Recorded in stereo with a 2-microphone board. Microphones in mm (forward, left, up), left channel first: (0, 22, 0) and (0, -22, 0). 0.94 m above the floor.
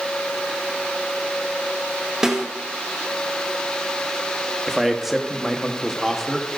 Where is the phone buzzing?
I don't hear a phone buzzing.